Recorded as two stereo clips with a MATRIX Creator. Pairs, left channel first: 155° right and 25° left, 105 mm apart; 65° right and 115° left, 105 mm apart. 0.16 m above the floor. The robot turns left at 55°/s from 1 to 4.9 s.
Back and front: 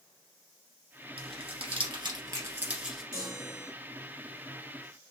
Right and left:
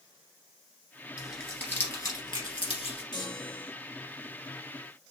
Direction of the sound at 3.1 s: 25° right.